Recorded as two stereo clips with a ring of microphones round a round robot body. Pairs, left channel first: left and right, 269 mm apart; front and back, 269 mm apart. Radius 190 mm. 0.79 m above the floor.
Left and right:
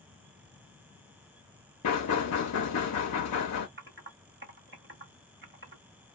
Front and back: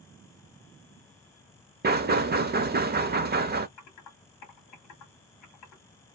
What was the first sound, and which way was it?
Knocking, 125° left.